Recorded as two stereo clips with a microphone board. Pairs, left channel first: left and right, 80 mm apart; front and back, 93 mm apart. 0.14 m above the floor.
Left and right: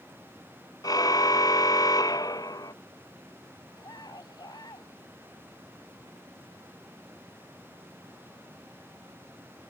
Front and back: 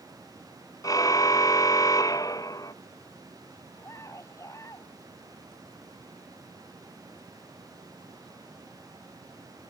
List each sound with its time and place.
0.8 s a car horn: 50° left
3.7 s a scream: 55° left